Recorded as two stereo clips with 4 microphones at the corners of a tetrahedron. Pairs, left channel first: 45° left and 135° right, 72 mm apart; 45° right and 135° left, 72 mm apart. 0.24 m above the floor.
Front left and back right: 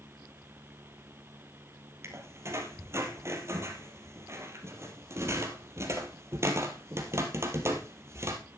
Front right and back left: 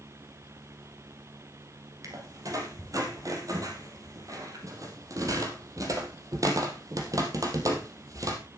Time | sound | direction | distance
2.0 | a squeak | 175° left | 2.5 m